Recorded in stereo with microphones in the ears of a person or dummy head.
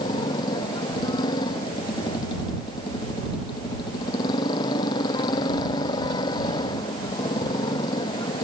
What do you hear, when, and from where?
0.0 s a motorcycle: 25° left (ahead or behind)